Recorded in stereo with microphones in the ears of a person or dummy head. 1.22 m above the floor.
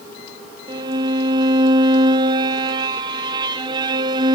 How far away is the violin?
About 0.6 m.